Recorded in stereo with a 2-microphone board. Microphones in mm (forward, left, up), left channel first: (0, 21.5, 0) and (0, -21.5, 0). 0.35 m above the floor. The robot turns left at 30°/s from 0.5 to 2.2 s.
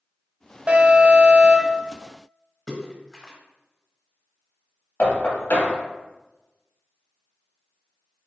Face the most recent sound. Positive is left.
turn(degrees=60)  # may be behind; listen again after turning